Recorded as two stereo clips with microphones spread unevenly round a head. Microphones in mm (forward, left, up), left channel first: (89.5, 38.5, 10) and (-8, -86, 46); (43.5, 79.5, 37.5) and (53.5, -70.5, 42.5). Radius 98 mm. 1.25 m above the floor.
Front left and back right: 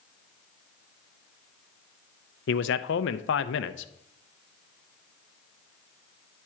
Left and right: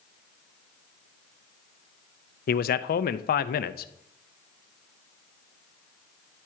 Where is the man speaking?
70° left, 0.5 m.